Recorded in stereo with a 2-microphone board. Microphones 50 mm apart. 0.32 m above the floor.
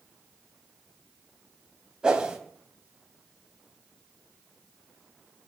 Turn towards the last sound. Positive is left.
turn(degrees=-15)  # may be behind; listen again after turning